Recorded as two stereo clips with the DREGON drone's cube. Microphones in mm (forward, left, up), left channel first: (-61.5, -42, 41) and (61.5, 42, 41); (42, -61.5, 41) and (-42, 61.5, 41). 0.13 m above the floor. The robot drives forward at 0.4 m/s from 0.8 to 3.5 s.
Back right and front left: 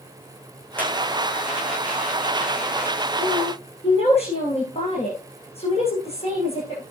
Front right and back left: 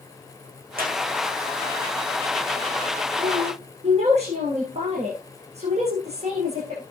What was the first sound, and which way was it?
A squeak, 135° left.